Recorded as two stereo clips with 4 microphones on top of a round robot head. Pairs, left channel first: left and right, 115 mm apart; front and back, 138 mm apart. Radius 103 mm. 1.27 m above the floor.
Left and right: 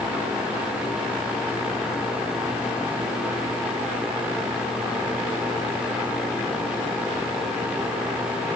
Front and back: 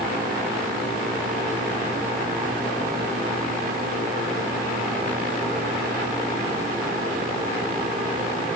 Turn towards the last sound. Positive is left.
No sound to turn to.